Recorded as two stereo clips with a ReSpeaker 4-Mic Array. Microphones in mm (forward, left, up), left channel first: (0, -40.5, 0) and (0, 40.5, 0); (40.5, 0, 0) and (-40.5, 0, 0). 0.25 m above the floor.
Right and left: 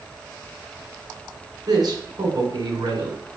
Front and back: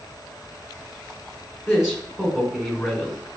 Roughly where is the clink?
I don't hear a clink.